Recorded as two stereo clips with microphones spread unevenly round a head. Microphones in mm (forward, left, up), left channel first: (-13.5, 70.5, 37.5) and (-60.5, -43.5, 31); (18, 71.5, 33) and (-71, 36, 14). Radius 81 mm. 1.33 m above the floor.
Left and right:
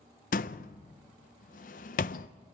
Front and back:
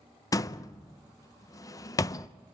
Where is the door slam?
65° left, 0.6 m.